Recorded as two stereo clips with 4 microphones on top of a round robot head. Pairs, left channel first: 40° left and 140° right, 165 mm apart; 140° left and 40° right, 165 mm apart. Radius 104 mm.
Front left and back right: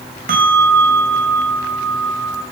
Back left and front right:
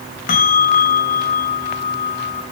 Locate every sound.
0.3 s a bell: straight behind, 3 m